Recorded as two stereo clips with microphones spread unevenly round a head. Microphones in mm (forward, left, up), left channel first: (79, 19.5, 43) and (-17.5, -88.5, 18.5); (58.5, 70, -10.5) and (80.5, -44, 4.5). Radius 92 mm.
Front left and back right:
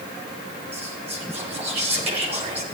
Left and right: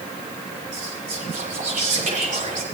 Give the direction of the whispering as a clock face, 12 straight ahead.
3 o'clock.